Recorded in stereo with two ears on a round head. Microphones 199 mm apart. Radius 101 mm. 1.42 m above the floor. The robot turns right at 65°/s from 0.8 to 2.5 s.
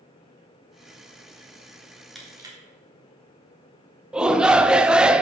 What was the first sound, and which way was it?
Crushing, centre (ahead or behind).